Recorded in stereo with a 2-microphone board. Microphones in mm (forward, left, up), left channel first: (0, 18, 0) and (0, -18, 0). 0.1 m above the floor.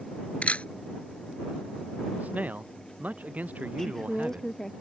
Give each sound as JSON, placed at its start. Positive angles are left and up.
{"t": 0.4, "sound": "a camera shutter", "side_deg": 40}
{"t": 2.2, "sound": "a man speaking", "side_deg": -50}
{"t": 3.8, "sound": "a woman speaking", "side_deg": 10}